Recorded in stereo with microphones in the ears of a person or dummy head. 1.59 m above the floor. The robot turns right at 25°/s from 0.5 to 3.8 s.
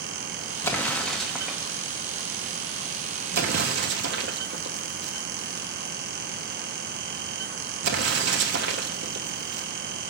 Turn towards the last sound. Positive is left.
turn(degrees=-65)  # may be behind; listen again after turning